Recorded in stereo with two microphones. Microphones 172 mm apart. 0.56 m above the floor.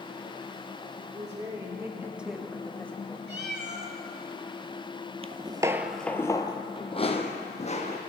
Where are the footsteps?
35° right (ahead or behind), 0.6 m; by 8.0 s 40° left (ahead or behind), 1.7 m.